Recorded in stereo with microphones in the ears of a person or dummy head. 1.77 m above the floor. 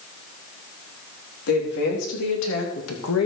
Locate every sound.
1.5 s a woman speaking: 60° left (ahead or behind), 4 m; by 3.3 s 85° left, 2.5 m